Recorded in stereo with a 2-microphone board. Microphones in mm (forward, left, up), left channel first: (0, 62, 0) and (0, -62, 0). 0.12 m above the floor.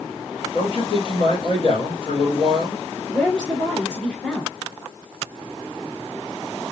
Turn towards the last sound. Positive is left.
turn(degrees=10)  # may be behind; listen again after turning